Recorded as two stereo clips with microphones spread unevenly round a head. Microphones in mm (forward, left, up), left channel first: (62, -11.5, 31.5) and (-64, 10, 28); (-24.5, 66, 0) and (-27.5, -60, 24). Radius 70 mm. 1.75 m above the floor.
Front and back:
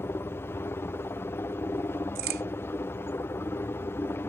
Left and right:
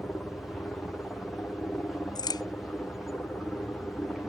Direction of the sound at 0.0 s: 25° left.